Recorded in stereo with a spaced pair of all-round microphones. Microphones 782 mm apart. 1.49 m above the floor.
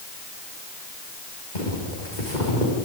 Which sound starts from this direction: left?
Footsteps, at 1.6 s.